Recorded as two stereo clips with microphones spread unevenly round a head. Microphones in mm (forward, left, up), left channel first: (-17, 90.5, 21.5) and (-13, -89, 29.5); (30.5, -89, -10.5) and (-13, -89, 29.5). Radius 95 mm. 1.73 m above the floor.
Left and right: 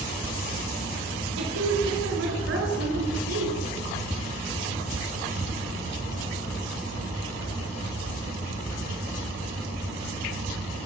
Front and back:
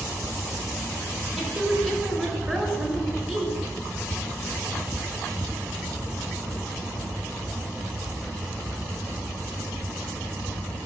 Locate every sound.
1.4 s a woman speaking: 100° right, 5 m